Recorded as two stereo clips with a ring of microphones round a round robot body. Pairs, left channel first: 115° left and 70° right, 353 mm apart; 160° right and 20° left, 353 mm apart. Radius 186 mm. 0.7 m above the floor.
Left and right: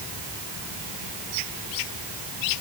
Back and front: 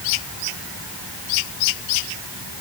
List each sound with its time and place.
Only background noise.